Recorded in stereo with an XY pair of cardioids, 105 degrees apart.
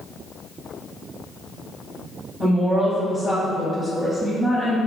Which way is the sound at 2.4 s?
15° right.